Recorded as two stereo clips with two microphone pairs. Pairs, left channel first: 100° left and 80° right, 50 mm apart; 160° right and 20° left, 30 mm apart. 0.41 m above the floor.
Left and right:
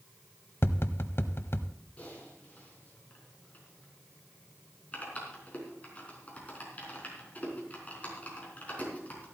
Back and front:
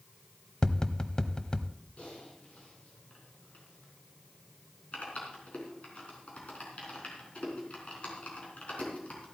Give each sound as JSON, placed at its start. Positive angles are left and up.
{"t": 0.6, "sound": "tapping", "azimuth_deg": 135, "distance_m": 0.7}
{"t": 2.0, "sound": "typing on a keyboard", "azimuth_deg": 160, "distance_m": 4.0}